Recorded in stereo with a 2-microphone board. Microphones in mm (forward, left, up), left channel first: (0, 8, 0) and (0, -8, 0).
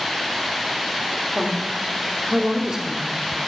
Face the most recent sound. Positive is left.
turn(degrees=-35)  # may be behind; listen again after turning